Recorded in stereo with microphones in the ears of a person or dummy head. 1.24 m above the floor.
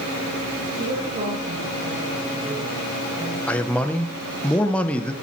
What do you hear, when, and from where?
0.8 s a woman speaking: 45° right (ahead or behind), 2.5 m; by 3.4 s 5° right (ahead or behind), 1.9 m
3.5 s a man speaking: 10° left (ahead or behind), 0.6 m